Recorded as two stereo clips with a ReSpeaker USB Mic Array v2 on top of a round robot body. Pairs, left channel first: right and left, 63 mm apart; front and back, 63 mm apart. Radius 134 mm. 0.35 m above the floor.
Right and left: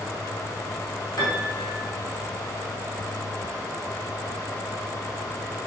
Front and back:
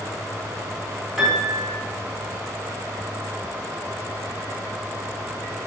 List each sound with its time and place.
1.2 s a piano: 95° right, 4.5 m